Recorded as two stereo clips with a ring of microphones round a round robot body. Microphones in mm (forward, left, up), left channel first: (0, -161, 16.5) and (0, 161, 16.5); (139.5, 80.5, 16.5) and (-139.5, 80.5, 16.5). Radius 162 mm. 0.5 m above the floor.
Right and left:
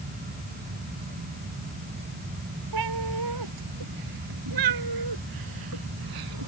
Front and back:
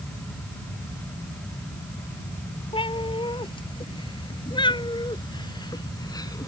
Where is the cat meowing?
70° left; by 6.5 s 75° left.